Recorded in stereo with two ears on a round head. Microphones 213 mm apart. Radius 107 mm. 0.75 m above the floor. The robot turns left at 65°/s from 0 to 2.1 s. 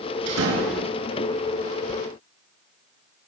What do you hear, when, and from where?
0.3 s a door slam: 95° right, 7.5 m; by 0.9 s 135° right, 7.5 m